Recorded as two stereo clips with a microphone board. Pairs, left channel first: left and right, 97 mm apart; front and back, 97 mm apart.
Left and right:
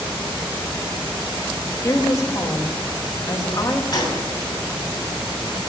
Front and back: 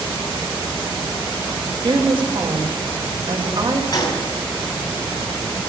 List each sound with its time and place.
1.8 s a woman speaking: 145° left, 1.6 m
3.9 s a gunshot: 40° left, 2.5 m